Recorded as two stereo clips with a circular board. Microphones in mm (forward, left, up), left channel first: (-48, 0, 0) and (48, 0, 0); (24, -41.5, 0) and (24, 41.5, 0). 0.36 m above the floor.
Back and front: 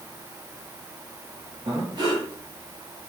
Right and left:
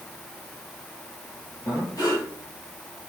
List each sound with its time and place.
1.6 s breathing: 45° right, 6 m